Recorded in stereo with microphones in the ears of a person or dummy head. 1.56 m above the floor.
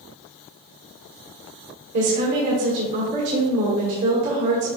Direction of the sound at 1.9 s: 55° right (ahead or behind).